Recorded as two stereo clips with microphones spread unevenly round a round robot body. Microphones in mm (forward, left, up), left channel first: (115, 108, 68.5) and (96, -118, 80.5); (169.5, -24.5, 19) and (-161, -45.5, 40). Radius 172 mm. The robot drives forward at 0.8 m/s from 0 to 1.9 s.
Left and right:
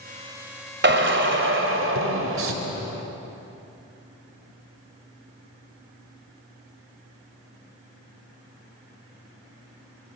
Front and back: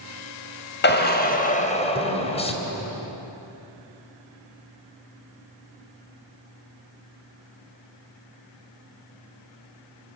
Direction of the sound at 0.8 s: 55° right.